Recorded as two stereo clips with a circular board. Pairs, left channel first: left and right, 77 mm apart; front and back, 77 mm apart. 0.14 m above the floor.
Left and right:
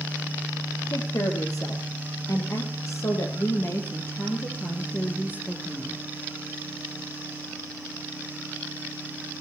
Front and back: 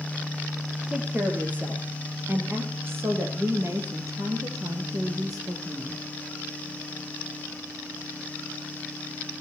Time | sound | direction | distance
0.9 | a woman speaking | 110° left | 4.5 m